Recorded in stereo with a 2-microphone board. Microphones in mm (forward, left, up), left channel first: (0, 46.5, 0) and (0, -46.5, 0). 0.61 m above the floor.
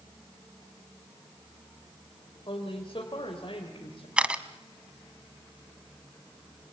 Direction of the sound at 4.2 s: 10° right (ahead or behind).